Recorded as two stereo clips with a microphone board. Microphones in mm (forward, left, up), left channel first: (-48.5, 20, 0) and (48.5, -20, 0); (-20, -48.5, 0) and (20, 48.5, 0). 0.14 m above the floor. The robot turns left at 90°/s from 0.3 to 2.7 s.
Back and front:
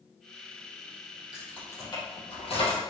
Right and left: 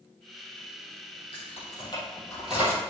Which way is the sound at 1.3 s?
105° right.